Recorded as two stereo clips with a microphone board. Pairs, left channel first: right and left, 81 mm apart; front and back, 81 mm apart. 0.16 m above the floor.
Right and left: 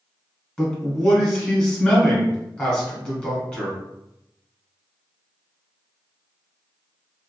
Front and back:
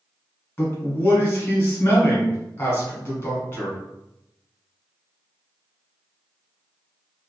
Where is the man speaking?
25° right, 1.3 m.